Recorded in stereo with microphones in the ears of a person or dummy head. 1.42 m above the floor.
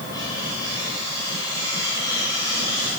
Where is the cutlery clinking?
20° left (ahead or behind), 8 m.